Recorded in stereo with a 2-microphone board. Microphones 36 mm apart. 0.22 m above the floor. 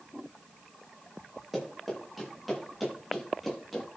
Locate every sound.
1.5 s running footsteps: 5° right (ahead or behind), 8 m; by 3.9 s centre (ahead or behind), 9 m